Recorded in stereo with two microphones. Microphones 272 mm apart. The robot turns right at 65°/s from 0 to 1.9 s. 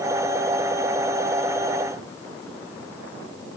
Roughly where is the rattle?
No rattle in this recording.